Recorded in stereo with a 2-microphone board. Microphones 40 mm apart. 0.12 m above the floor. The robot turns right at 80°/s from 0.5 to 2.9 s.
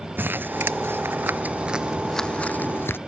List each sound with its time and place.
0.2 s crumpling: 60° right (ahead or behind); by 3.0 s 70° left (ahead or behind)